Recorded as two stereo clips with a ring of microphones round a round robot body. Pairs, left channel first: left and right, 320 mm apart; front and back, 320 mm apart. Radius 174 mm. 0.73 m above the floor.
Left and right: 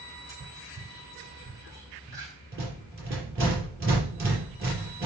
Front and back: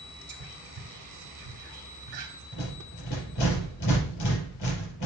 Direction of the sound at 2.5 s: 40° right.